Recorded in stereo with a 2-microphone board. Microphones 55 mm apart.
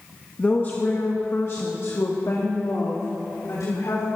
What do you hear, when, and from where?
0.4 s a woman speaking: 30° left (ahead or behind), 1.3 m; by 4.0 s 80° left, 3 m